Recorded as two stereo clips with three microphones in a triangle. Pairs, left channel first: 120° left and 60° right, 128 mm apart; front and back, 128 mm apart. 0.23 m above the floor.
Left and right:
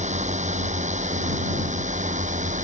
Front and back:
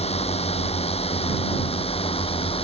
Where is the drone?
35° right; by 2.6 s 40° right.